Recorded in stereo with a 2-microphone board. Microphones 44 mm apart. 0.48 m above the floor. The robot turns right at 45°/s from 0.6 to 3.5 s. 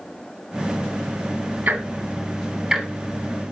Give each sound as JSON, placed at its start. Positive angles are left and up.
{"t": 1.7, "sound": "ticking", "side_deg": -45, "distance_m": 1.3}